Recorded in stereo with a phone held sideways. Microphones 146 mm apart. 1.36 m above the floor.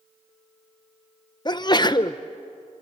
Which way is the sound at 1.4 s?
30° left (ahead or behind).